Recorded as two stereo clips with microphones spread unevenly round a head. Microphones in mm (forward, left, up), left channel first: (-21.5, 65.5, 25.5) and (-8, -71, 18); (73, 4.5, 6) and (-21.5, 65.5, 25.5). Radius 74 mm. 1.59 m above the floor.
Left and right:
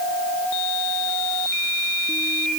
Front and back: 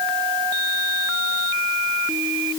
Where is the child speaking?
I don't hear a child speaking.